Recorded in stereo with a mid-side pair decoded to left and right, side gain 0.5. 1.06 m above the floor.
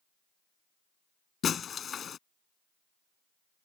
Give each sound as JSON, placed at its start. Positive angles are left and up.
{"t": 1.4, "sound": "breaking glass", "azimuth_deg": 45}